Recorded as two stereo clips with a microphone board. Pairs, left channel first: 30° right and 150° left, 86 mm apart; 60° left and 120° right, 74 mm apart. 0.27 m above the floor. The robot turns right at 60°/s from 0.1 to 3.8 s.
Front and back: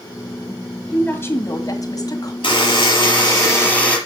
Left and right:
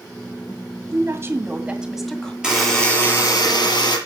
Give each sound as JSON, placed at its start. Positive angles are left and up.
{"t": 0.9, "sound": "a woman speaking", "azimuth_deg": -100, "distance_m": 1.9}
{"t": 2.4, "sound": "a buzzer", "azimuth_deg": -40, "distance_m": 6.0}